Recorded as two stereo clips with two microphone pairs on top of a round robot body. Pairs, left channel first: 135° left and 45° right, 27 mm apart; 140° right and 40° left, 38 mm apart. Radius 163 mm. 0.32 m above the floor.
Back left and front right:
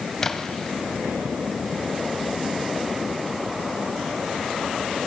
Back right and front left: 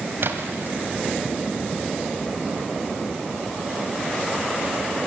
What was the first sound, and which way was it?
A splash, 60° left.